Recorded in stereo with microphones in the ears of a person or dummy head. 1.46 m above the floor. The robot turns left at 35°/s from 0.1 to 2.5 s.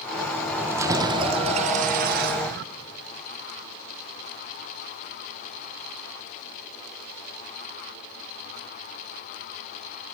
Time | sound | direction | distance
0.6 | keys jangling | 15° right | 0.9 m